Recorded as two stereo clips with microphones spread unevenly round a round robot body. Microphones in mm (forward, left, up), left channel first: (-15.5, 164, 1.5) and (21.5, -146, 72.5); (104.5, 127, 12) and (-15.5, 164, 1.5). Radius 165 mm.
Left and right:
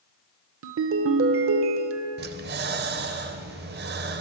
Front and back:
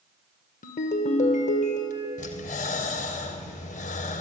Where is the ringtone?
30° right, 0.7 m.